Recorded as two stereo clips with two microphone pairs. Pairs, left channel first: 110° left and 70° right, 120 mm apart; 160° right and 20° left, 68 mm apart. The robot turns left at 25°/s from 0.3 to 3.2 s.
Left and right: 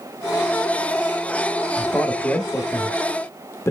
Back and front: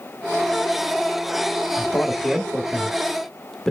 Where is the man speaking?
170° left, 0.8 m; by 3.7 s 135° left, 0.8 m.